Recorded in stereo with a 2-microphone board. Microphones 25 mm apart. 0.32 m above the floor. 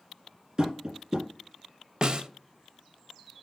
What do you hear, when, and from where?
0.6 s tapping: 35° right (ahead or behind), 2 m
2.0 s a snare drum: 40° right (ahead or behind), 0.5 m